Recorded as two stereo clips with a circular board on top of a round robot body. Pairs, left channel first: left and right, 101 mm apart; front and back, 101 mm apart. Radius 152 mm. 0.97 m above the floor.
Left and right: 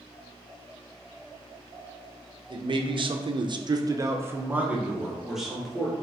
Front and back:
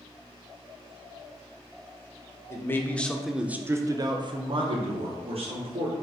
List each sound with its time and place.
2.5 s a man speaking: 60° right, 0.8 m; by 5.9 s straight behind, 1.4 m